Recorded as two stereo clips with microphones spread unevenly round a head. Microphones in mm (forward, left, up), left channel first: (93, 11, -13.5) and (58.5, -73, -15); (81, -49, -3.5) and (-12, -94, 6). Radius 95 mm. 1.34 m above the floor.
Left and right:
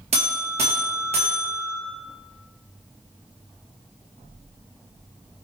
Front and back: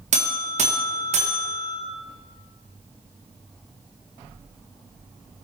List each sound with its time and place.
0.1 s a buzzer: 155° right, 1.6 m